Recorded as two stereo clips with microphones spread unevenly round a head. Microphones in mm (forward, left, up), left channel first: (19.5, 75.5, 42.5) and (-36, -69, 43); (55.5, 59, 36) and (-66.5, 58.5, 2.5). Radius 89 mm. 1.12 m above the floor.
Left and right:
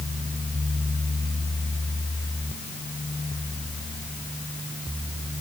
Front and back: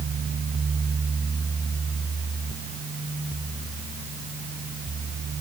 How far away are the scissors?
I don't hear scissors.